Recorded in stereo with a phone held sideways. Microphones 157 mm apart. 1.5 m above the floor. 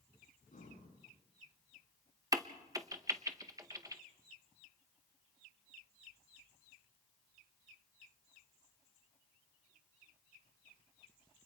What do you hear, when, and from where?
0.5 s breathing: 60° left (ahead or behind), 8.5 m
2.3 s a crack: 20° right (ahead or behind), 1.0 m